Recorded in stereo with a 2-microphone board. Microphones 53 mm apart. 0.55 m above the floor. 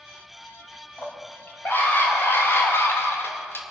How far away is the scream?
About 4 m.